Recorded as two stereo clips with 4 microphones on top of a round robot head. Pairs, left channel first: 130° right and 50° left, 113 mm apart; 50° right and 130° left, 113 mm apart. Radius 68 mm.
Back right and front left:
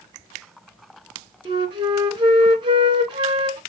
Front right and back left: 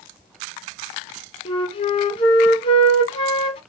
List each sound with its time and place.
1.4 s a flute: 5° right, 2.0 m